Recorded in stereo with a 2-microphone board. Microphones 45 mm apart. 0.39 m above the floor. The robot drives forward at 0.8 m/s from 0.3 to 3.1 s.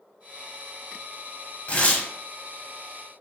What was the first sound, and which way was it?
Tearing paper, 35° left (ahead or behind).